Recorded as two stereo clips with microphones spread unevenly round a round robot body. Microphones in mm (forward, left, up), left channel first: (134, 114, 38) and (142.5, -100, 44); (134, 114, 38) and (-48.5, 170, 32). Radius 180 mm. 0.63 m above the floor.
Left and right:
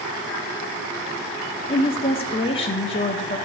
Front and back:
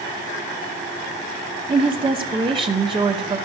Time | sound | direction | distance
1.7 | a woman speaking | 125° left | 1.0 m